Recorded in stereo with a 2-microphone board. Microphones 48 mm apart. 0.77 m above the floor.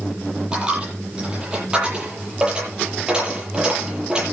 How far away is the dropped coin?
About 10 m.